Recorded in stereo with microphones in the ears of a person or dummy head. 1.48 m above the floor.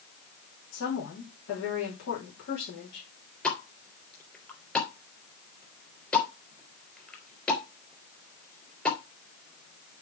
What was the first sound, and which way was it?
A woman speaking, 60° left (ahead or behind).